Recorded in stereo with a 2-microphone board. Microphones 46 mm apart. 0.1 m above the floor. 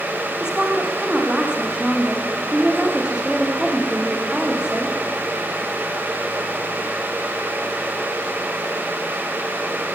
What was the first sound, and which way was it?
A woman speaking, 20° right (ahead or behind).